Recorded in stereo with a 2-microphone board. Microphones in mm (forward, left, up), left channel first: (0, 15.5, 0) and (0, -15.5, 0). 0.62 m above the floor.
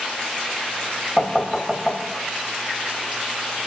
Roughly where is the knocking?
Centre.